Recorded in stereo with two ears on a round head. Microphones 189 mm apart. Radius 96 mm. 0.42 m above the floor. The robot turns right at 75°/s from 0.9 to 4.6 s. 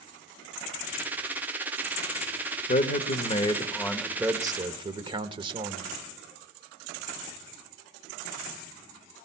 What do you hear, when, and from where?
2.7 s a man speaking: 80° left, 0.9 m; by 5.9 s 140° right, 0.9 m